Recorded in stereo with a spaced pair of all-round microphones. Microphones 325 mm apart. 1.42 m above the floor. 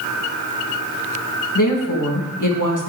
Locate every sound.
1.6 s a woman speaking: 70° left (ahead or behind), 1.8 m